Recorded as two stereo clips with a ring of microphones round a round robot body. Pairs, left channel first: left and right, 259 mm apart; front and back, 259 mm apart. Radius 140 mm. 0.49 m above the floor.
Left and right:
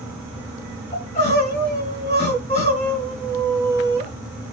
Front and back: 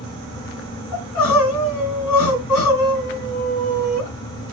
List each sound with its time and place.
0.9 s crying: 20° left, 5.5 m